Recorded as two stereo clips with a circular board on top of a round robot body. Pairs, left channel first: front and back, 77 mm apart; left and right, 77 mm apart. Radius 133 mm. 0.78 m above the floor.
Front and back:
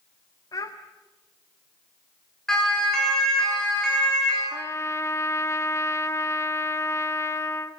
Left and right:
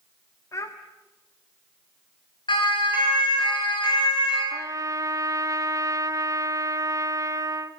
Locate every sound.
0.5 s a child speaking: 40° left, 1.6 m
2.5 s a siren: 85° left, 9.5 m; by 4.4 s 80° left, 11.5 m
4.5 s a trumpet: 50° right, 1.7 m